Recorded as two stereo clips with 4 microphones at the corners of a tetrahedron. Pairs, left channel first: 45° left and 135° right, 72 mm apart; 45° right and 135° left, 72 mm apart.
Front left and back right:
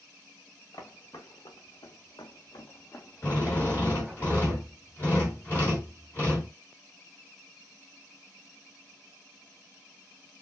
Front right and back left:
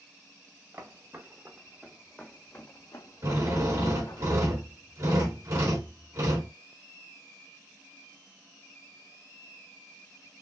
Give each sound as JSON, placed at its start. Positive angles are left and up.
{"t": 0.7, "sound": "footsteps", "azimuth_deg": 75, "distance_m": 1.7}
{"t": 3.2, "sound": "a drill", "azimuth_deg": 105, "distance_m": 2.5}